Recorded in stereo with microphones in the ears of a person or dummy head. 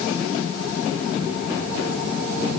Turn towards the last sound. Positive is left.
No sound to turn to.